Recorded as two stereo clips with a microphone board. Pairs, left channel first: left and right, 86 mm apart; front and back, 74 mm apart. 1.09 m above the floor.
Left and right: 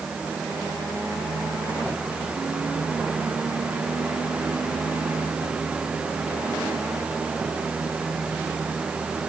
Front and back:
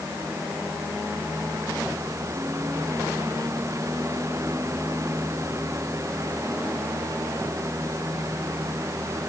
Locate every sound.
Only background noise.